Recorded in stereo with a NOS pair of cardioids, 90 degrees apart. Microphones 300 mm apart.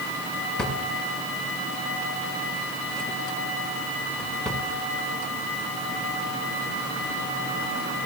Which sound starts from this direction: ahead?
A drawer, at 0.6 s.